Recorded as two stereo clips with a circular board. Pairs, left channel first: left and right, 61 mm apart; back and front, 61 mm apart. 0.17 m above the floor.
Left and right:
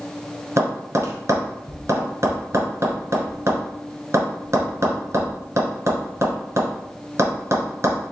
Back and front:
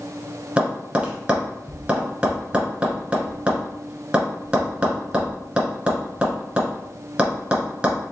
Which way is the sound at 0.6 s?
65° right.